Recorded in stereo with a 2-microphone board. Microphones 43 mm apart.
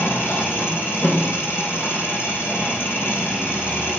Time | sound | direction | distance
0.0 | an engine running | 70° left (ahead or behind) | 4 m